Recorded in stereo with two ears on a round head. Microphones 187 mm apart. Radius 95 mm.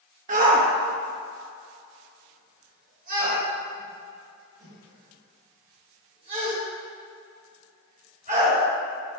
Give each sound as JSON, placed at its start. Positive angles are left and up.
{"t": 0.3, "sound": "a shout", "side_deg": -40, "distance_m": 1.0}